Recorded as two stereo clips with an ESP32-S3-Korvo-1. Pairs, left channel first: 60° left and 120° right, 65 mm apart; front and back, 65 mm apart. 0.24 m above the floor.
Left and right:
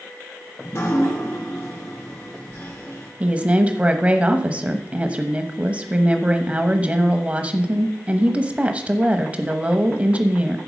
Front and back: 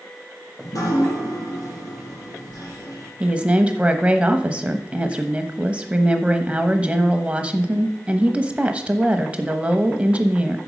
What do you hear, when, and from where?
0.6 s dripping: 15° left, 3.5 m
3.2 s a woman speaking: 145° right, 1.0 m